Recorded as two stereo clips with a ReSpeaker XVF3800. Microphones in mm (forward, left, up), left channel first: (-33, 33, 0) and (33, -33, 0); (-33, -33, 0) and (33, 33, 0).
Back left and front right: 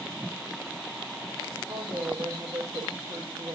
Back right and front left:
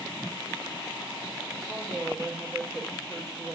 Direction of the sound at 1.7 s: 50° right.